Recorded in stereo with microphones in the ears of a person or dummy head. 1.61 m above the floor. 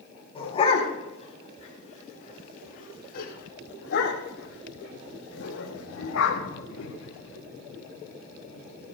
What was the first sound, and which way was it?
A dog barking, 25° left (ahead or behind).